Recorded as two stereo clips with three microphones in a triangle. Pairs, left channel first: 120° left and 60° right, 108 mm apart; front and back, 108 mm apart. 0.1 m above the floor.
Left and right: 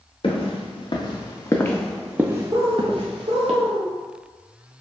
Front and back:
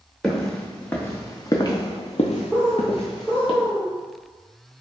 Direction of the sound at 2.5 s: 75° right.